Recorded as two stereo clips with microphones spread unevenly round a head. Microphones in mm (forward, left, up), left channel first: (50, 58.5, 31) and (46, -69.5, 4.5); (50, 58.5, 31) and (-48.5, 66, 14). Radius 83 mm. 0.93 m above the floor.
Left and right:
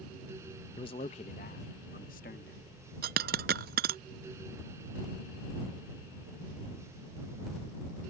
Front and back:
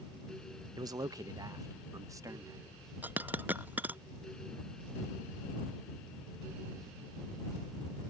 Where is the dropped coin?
100° right.